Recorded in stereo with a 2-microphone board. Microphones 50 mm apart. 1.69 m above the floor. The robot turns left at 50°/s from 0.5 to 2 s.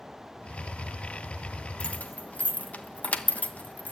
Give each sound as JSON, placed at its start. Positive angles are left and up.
{"t": 1.8, "sound": "keys jangling", "side_deg": 25, "distance_m": 1.3}